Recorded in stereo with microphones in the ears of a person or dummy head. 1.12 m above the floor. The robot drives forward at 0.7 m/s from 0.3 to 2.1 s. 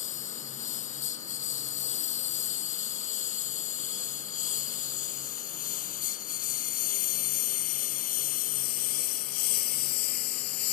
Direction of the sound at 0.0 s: 45° left (ahead or behind).